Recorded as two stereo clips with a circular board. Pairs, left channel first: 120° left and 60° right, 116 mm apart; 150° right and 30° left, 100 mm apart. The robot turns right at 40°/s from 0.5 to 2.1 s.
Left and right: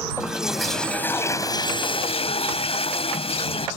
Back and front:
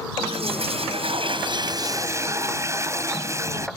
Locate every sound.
0.2 s a toilet flushing: 25° left; by 3.7 s 90° left